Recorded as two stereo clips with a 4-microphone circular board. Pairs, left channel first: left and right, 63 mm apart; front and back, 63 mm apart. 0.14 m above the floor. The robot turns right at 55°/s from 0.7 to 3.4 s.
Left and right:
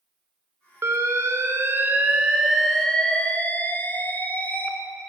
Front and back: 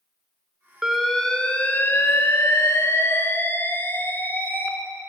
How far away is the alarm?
About 1.0 m.